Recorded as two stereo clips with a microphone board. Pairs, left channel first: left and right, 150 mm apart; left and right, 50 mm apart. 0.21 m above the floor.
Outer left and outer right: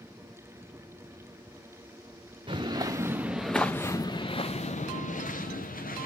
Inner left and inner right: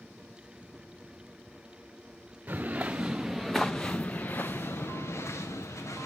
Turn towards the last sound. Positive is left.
turn(degrees=70)  # may be behind; listen again after turning